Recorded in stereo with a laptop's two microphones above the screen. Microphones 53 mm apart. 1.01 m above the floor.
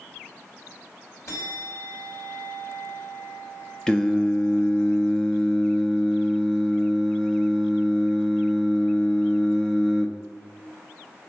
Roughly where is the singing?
Centre.